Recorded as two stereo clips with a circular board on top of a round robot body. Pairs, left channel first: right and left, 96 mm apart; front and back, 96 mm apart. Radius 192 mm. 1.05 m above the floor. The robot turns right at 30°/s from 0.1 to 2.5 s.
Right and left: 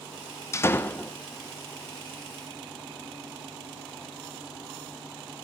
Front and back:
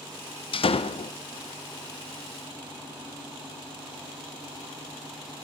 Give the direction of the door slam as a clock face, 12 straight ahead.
1 o'clock.